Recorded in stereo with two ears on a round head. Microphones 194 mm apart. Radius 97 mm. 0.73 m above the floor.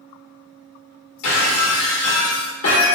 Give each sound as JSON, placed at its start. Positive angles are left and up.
{"t": 1.2, "sound": "breaking glass", "side_deg": 75, "distance_m": 1.1}